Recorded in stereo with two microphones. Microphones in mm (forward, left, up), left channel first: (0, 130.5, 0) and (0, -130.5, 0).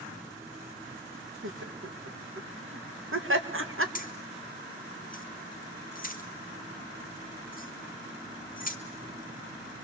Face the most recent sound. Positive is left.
turn(degrees=35)  # may be behind; listen again after turning